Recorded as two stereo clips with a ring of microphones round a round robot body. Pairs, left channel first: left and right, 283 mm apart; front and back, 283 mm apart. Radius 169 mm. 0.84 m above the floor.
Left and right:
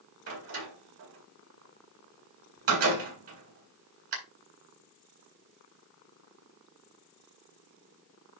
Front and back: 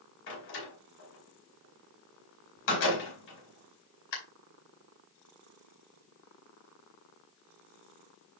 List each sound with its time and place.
0.3 s a door slam: 50° right, 4 m